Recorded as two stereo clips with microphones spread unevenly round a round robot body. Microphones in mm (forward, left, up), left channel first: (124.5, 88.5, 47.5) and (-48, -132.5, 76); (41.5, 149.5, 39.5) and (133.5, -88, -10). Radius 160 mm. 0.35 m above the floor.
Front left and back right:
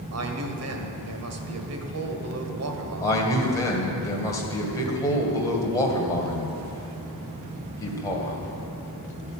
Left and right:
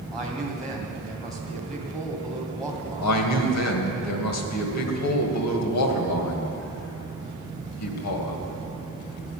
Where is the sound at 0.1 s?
155° right, 1.9 m.